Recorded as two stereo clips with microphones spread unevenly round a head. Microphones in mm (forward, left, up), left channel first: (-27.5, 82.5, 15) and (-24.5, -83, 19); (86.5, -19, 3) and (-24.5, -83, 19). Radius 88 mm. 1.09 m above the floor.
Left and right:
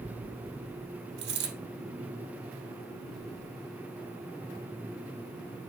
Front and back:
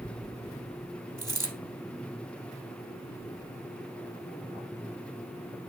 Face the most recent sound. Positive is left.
turn(degrees=-85)